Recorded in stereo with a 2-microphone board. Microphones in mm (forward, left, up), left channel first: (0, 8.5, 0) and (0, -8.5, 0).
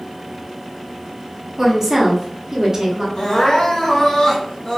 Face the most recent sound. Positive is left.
turn(degrees=60)  # may be behind; listen again after turning